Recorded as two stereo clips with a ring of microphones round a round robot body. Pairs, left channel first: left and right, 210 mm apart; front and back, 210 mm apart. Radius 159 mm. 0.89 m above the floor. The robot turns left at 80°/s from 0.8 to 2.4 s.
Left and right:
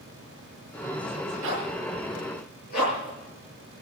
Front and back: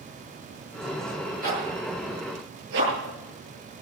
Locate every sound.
1.4 s a zipper: 130° right, 9.5 m; by 3.1 s 150° left, 9.5 m